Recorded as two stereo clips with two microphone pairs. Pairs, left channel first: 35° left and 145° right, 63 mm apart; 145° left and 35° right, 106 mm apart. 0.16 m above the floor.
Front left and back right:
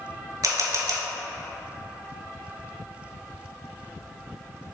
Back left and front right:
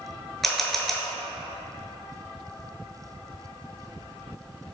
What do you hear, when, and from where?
0.4 s a camera shutter: 130° right, 0.5 m